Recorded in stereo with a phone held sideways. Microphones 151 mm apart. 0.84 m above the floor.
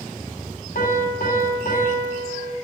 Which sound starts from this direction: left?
A piano, at 0.8 s.